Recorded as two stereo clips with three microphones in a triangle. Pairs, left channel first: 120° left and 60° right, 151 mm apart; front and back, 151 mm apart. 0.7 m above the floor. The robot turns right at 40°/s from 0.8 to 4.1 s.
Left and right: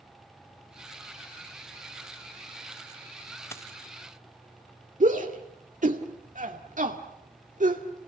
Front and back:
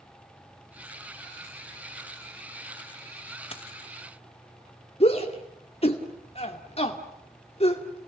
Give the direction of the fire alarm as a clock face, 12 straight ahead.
No fire alarm in this recording.